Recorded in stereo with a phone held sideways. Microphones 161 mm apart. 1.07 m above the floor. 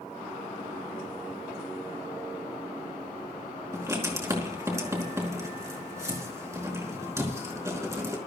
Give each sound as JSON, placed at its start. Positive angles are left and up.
{"t": 3.7, "sound": "writing", "side_deg": -20, "distance_m": 4.5}